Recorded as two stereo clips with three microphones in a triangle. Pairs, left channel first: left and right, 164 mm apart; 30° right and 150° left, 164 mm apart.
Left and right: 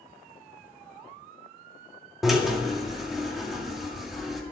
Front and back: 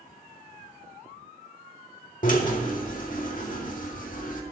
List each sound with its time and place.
2.2 s a drill: straight ahead, 2 m